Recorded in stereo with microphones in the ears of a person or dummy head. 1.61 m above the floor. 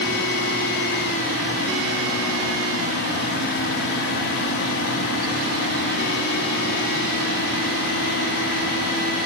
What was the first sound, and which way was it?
Only background noise.